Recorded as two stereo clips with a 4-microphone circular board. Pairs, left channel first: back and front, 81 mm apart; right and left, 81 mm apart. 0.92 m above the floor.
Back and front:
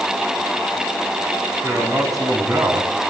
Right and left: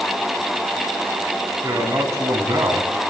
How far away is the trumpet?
I don't hear a trumpet.